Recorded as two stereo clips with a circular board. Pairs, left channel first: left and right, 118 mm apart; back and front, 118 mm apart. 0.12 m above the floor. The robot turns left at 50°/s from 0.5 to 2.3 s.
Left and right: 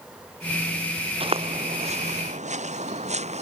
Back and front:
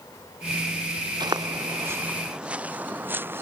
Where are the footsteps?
50° right; by 3.4 s 70° right.